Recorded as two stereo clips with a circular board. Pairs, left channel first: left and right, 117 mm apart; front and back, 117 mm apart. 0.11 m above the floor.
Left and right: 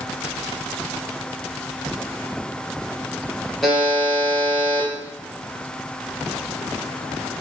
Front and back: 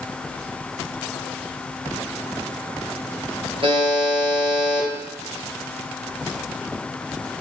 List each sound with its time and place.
3.6 s a buzzer: straight behind, 2.5 m